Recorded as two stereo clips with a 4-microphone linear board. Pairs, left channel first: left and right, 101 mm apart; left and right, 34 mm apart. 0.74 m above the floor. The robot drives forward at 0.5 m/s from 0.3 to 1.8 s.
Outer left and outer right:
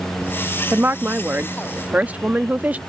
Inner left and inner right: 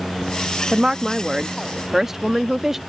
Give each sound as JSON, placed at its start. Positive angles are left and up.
{"t": 0.7, "sound": "a woman speaking", "side_deg": -20}